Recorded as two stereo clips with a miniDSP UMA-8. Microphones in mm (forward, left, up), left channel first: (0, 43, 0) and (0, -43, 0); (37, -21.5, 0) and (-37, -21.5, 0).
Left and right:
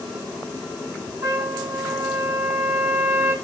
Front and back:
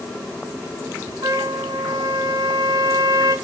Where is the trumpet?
150° right, 6.5 m.